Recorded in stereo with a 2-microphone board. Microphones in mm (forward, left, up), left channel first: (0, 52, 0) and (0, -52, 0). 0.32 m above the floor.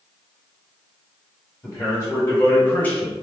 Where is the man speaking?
20° left (ahead or behind), 1.5 m; by 3.1 s 10° left (ahead or behind), 1.3 m.